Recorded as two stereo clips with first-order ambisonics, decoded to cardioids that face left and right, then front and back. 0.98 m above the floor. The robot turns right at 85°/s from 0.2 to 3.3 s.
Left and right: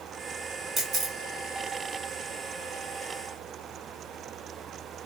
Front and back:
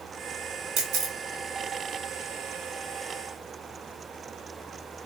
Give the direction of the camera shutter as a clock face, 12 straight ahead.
5 o'clock.